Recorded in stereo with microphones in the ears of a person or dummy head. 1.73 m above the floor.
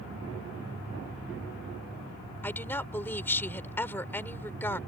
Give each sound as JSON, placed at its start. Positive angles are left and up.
{"t": 2.4, "sound": "a woman speaking", "side_deg": 10}